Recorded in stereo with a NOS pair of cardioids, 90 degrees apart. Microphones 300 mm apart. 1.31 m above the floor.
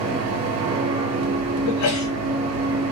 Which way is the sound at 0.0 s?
60° right.